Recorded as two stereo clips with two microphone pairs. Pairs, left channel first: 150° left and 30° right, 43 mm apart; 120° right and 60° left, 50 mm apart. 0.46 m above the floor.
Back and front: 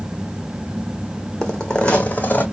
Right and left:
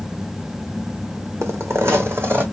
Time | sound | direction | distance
1.4 | footsteps | 65° left | 1.2 m